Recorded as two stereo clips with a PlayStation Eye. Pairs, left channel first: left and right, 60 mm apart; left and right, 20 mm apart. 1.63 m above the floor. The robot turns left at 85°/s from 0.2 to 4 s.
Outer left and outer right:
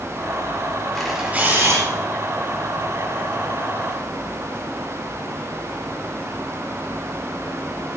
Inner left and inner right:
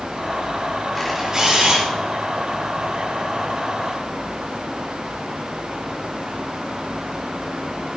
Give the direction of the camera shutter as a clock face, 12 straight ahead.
12 o'clock.